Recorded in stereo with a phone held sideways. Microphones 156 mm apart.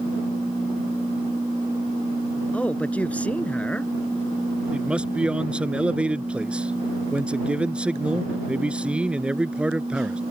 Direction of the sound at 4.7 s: 5° right (ahead or behind).